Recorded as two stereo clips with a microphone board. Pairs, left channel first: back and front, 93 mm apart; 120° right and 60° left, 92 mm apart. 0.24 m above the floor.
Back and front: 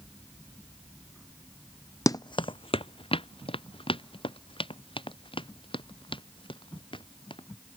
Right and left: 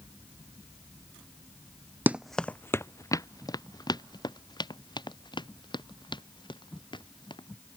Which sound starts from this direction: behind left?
Running footsteps, at 2.1 s.